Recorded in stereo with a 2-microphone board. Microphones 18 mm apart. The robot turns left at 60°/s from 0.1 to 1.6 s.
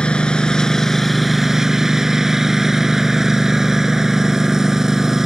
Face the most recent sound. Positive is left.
turn(degrees=-25)